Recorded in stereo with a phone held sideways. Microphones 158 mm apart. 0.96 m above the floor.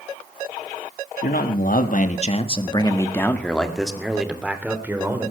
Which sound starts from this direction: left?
A man speaking, at 1.2 s.